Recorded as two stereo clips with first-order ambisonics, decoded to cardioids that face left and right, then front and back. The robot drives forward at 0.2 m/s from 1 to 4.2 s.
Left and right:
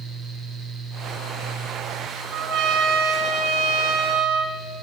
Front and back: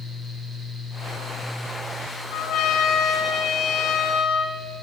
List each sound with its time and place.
2.3 s a trumpet: 55° right, 4 m; by 4.6 s 60° right, 3.5 m